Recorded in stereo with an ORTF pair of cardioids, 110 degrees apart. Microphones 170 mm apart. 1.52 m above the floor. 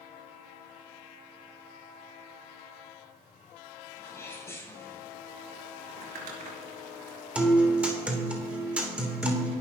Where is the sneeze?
15° left, 8.5 m.